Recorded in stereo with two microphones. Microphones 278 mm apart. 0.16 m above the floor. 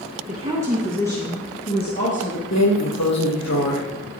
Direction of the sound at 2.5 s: 75° left (ahead or behind).